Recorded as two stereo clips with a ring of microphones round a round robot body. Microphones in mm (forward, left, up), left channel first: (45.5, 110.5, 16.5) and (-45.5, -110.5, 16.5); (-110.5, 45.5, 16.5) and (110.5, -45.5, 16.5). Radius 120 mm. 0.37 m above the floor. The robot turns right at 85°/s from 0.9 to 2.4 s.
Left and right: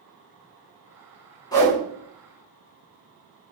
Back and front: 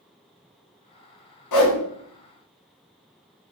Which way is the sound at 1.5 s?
140° left.